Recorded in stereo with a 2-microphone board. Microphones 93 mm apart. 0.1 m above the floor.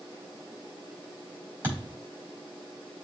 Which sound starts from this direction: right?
A thud, at 1.6 s.